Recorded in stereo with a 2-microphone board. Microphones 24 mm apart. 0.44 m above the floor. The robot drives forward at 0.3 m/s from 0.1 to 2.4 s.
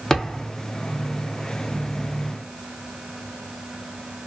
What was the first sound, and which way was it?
A thud, 20° left (ahead or behind).